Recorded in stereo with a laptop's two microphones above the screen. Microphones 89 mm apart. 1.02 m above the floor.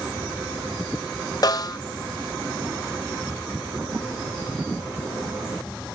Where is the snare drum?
45° left (ahead or behind), 0.6 m.